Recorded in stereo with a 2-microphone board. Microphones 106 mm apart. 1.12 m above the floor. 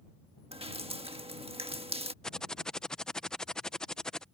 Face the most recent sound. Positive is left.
turn(degrees=5)  # may be behind; listen again after turning